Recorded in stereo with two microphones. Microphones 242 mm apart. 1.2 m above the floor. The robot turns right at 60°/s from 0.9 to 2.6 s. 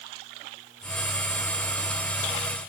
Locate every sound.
Only background noise.